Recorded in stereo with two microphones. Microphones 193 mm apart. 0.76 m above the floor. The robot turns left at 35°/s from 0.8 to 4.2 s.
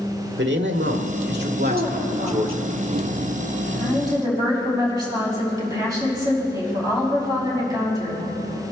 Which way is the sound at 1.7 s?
75° right.